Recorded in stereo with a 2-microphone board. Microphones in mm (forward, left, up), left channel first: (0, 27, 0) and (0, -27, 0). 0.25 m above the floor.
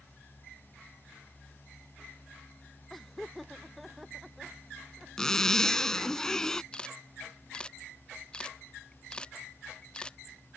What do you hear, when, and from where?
2.9 s laughter: 5° left (ahead or behind); by 5.1 s 5° right (ahead or behind)
5.2 s a zipper: 10° left (ahead or behind)
6.7 s a camera shutter: 15° left (ahead or behind)